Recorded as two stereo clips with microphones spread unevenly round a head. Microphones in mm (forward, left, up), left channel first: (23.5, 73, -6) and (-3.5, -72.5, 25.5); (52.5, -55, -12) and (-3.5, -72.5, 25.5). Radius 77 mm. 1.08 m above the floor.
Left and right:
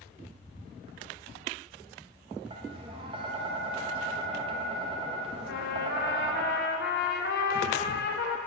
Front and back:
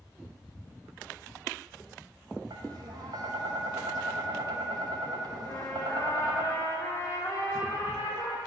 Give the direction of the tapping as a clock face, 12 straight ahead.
5 o'clock.